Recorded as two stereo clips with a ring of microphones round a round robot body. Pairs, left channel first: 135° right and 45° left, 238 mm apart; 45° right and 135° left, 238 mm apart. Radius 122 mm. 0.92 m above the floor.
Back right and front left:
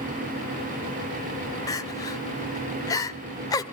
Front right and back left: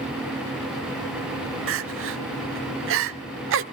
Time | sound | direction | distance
1.7 | crying | 150° left | 0.8 m